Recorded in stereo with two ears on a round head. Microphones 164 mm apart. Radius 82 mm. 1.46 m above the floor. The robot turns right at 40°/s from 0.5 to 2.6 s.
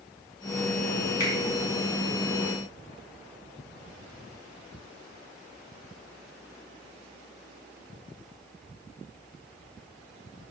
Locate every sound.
1.2 s a finger snap: 20° left (ahead or behind), 5 m; by 1.3 s 15° left (ahead or behind), 5 m